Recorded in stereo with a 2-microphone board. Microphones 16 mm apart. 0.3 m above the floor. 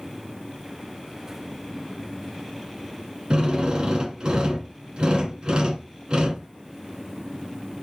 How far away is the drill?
About 1.7 m.